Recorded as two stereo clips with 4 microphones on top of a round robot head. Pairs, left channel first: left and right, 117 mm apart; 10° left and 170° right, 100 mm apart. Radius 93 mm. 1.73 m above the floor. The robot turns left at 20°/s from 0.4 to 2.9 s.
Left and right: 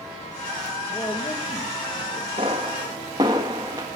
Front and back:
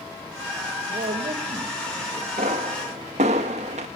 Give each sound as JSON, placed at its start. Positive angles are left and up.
{"t": 0.9, "sound": "a man speaking", "azimuth_deg": 165, "distance_m": 3.0}
{"t": 2.4, "sound": "a pop", "azimuth_deg": -145, "distance_m": 1.4}